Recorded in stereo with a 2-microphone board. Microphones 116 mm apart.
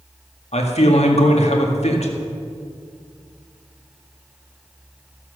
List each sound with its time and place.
0.5 s a man speaking: 65° left (ahead or behind), 1.8 m